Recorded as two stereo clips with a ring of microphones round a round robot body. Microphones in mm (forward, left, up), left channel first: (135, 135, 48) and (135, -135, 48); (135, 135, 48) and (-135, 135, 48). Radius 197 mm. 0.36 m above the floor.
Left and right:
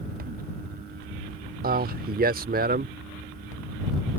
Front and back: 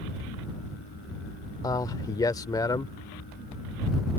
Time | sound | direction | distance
1.6 | a man speaking | 70° right | ?